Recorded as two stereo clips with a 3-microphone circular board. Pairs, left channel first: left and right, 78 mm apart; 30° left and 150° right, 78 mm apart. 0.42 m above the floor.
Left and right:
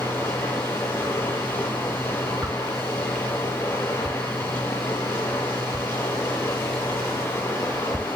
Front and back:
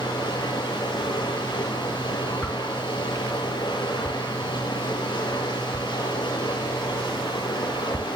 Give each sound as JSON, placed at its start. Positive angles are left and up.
{"t": 0.0, "sound": "running water", "azimuth_deg": 35, "distance_m": 9.5}
{"t": 2.4, "sound": "a whoosh", "azimuth_deg": -50, "distance_m": 2.0}